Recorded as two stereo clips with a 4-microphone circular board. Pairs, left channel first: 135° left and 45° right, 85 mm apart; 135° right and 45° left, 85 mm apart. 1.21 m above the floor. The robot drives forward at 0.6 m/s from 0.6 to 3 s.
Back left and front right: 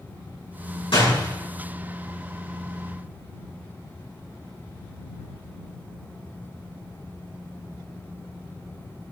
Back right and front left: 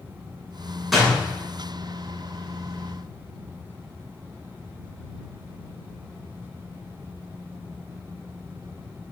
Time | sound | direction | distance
0.9 | a door slam | 135° left | 7 m